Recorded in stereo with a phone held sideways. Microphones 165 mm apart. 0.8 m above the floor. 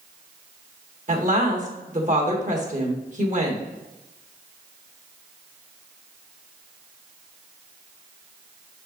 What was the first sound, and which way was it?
A woman speaking, 50° right (ahead or behind).